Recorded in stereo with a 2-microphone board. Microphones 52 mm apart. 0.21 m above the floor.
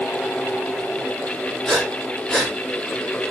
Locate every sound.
1.6 s breathing: 15° left (ahead or behind), 7.5 m